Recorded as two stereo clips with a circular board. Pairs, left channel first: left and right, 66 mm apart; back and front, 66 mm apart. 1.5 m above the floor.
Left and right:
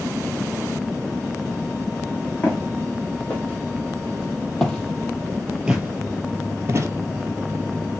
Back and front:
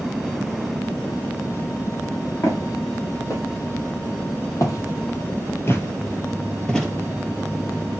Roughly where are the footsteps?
Behind left.